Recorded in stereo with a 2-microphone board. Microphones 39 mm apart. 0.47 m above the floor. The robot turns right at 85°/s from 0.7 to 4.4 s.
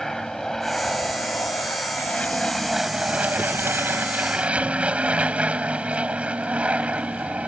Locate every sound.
0.0 s an aircraft: 10° left; by 7.5 s 35° right